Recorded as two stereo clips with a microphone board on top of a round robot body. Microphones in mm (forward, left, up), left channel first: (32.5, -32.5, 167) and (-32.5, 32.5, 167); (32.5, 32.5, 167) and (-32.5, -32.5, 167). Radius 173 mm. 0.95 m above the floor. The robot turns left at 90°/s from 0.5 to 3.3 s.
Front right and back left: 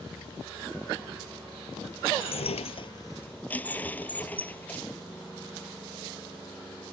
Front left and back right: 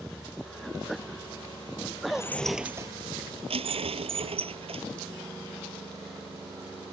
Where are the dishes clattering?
10° right; by 4.8 s 120° right.